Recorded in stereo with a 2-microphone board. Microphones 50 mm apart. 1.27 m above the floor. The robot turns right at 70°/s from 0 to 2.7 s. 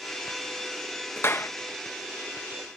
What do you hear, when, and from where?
1.2 s a clap: 45° left (ahead or behind); by 1.5 s 70° left (ahead or behind)